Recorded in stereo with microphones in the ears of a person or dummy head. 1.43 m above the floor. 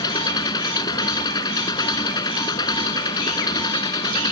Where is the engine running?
25° left (ahead or behind).